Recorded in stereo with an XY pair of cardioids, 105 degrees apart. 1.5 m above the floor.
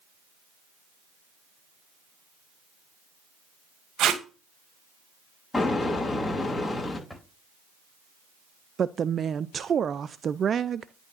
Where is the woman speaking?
40° right, 0.5 m.